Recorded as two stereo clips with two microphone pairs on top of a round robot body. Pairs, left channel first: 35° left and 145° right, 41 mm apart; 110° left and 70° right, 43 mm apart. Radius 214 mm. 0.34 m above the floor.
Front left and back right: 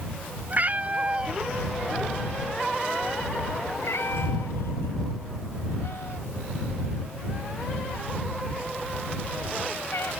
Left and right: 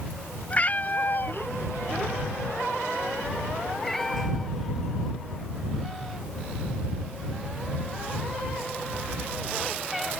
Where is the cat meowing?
165° left; by 10.1 s 15° left.